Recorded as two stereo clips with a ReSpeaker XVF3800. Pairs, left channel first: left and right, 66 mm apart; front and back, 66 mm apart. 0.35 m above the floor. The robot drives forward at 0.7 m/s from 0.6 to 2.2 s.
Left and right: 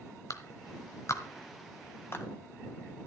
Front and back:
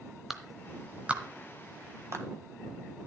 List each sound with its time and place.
0.3 s a clap: 95° left, 1.2 m; by 2.2 s 140° left, 1.7 m